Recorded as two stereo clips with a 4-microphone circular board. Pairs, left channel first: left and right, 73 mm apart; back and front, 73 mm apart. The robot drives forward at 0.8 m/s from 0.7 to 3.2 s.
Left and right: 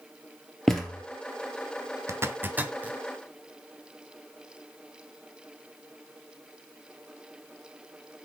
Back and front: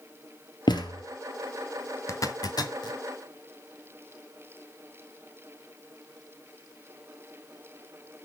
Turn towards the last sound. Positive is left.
turn(degrees=-165)